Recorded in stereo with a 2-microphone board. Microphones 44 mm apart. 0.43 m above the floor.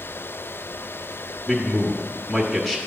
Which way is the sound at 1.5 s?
Centre (ahead or behind).